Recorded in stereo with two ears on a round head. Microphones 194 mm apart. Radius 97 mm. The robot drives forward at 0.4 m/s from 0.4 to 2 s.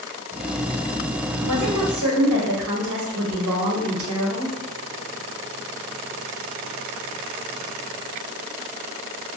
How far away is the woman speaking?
About 0.9 m.